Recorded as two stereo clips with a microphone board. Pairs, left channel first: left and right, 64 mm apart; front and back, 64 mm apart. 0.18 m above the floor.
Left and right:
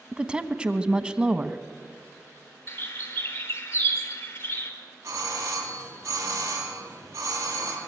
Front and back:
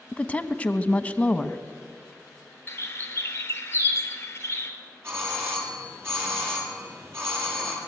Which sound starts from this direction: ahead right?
A woman speaking, at 0.1 s.